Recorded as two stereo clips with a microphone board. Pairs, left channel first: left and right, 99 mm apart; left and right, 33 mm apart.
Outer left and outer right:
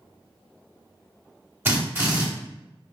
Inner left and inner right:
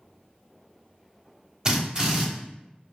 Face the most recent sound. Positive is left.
turn(degrees=-20)  # may be behind; listen again after turning